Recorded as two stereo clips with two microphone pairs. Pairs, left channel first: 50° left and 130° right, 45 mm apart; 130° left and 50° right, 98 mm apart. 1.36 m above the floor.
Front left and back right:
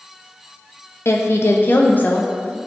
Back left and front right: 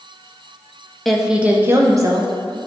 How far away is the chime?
I don't hear a chime.